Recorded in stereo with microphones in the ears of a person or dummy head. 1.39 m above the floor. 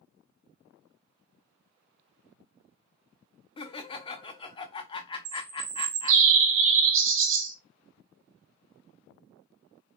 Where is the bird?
65° right (ahead or behind), 0.5 m.